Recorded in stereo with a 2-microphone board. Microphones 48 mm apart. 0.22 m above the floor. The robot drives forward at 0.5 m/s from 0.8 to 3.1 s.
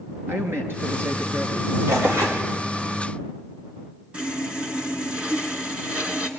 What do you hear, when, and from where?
0.3 s a man speaking: 55° right (ahead or behind), 4 m; by 1.8 s 60° right (ahead or behind), 4 m
1.9 s tearing paper: 80° right, 5 m
4.1 s sawing: 25° right (ahead or behind), 2.5 m